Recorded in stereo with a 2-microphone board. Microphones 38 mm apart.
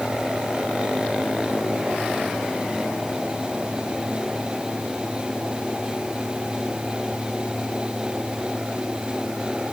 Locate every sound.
Only background noise.